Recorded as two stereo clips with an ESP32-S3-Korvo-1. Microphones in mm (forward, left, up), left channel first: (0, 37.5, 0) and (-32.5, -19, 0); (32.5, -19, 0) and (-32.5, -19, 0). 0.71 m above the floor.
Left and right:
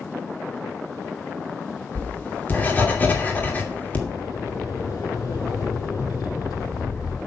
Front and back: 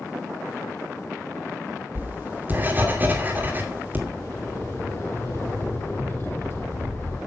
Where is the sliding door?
50° left, 6 m.